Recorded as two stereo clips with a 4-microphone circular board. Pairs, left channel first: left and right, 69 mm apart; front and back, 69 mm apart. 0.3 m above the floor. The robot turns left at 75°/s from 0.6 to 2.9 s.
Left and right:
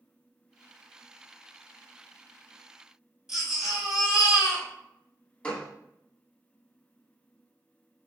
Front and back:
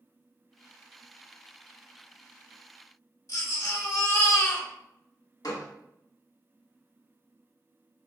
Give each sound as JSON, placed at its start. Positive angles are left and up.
{"t": 3.3, "sound": "a baby crying", "azimuth_deg": -10, "distance_m": 1.1}
{"t": 5.4, "sound": "a gunshot", "azimuth_deg": 20, "distance_m": 0.9}